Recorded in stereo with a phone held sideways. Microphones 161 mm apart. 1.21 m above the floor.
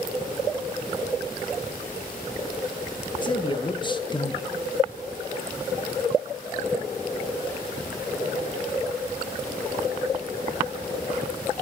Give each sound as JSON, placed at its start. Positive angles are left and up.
{"t": 3.2, "sound": "a man speaking", "side_deg": 30, "distance_m": 0.8}